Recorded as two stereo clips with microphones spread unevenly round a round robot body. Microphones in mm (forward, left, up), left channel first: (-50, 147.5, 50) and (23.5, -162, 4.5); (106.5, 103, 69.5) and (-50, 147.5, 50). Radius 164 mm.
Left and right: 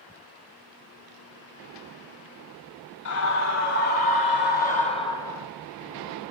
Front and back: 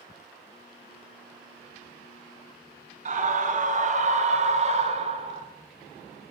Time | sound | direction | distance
3.0 | a scream | 135° left | 3 m